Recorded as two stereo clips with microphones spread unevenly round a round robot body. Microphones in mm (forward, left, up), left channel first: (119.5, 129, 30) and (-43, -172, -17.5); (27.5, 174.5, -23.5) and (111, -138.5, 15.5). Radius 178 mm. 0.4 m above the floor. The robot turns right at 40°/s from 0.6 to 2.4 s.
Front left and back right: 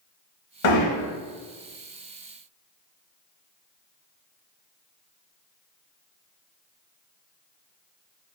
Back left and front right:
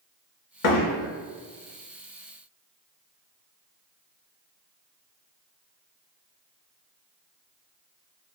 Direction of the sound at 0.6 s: 85° left.